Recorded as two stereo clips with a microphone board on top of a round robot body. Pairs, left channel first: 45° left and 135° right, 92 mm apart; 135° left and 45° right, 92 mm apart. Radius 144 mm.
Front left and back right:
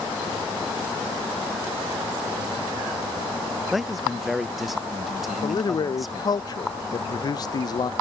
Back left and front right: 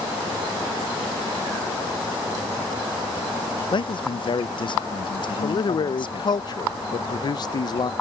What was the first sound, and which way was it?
A man speaking, 135° left.